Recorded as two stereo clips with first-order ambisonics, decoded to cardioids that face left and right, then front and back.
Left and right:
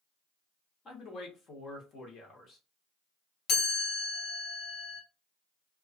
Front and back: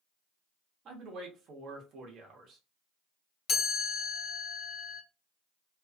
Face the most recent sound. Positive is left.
turn(degrees=45)